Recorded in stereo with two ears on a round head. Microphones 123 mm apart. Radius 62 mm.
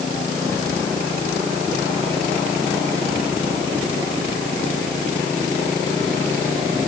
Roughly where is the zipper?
No zipper in this recording.